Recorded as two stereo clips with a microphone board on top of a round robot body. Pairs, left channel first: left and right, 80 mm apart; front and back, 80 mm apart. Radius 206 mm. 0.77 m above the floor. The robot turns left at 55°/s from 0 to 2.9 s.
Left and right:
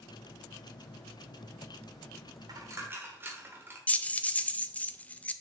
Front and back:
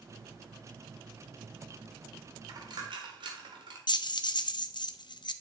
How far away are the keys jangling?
About 0.7 m.